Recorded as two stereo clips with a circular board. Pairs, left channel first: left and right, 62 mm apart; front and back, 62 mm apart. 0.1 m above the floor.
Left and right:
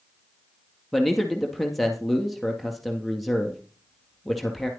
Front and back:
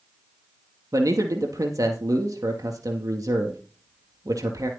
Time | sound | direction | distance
0.9 | a man speaking | straight behind | 2.5 m